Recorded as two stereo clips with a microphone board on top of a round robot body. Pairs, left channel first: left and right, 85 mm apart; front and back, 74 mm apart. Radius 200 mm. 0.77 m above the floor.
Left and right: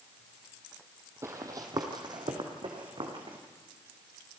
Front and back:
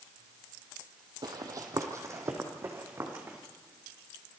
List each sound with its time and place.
1.2 s running footsteps: 150° right, 1.3 m; by 3.4 s 120° right, 3.5 m